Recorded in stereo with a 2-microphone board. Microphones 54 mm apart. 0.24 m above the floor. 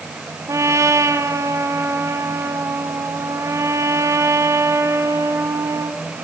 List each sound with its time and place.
0.5 s a trumpet: 70° right (ahead or behind), 3 m